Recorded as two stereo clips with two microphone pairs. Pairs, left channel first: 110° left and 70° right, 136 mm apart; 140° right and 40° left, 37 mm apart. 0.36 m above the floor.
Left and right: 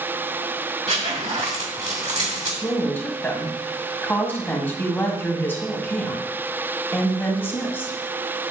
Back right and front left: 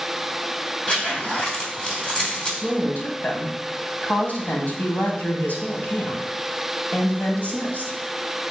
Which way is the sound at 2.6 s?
175° right.